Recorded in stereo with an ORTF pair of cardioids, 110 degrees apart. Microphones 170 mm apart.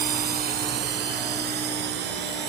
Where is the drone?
60° right; by 2.5 s 80° right.